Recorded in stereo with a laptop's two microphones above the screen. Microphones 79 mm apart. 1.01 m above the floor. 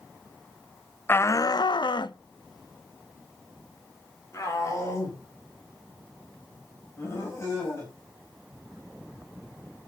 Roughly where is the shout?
Left.